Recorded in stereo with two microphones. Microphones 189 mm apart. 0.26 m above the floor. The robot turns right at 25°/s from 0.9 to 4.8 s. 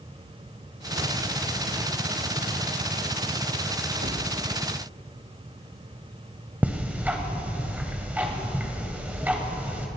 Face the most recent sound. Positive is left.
turn(degrees=-10)  # may be behind; listen again after turning